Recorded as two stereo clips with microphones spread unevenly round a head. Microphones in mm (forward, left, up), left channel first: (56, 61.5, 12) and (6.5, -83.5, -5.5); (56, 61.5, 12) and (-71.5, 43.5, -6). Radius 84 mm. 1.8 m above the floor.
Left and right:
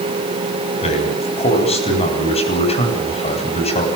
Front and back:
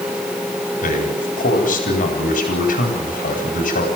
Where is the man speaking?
20° left, 10 m.